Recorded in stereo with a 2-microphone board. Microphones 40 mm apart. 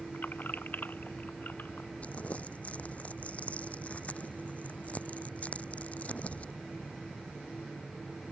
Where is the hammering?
I don't hear hammering.